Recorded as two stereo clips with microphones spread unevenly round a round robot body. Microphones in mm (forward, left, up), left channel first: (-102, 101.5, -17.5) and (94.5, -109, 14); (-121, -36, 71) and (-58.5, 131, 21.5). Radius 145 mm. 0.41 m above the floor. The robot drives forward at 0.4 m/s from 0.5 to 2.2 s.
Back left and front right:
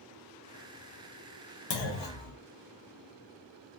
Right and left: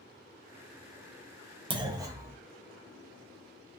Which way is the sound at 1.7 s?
135° left.